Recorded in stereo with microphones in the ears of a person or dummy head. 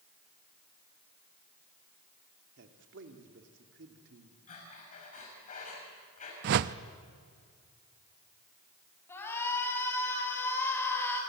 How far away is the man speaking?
About 2.5 m.